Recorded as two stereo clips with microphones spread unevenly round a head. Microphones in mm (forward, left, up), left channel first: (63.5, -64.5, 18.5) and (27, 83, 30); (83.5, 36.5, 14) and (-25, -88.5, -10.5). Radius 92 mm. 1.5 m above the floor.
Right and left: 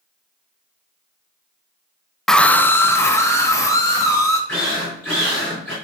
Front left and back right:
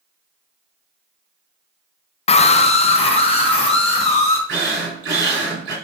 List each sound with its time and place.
2.3 s a scream: 15° left, 0.5 m; by 4.4 s 5° right, 3 m
4.5 s a drill: 165° right, 4 m